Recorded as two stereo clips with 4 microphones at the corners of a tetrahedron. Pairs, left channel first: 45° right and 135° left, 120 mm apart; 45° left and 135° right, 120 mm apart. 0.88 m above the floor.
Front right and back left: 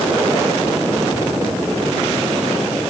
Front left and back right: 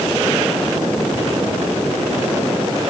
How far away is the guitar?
No guitar in this recording.